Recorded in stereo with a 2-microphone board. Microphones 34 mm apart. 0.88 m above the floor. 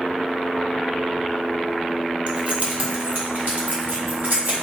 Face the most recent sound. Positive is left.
turn(degrees=-75)  # may be behind; listen again after turning